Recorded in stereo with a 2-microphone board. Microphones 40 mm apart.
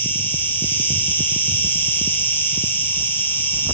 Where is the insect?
60° left (ahead or behind), 2.5 m.